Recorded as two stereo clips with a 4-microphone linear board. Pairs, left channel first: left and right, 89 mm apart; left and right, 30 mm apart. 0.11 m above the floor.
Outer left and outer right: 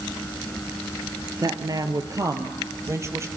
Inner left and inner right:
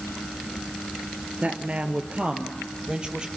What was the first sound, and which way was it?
A woman speaking, 45° right (ahead or behind).